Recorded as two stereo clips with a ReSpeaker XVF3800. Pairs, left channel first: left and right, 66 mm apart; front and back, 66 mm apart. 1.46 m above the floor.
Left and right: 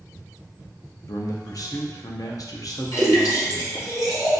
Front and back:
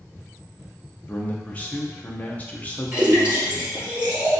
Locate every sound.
1.1 s a man speaking: 65° left, 0.6 m
2.9 s a splash: 110° left, 1.7 m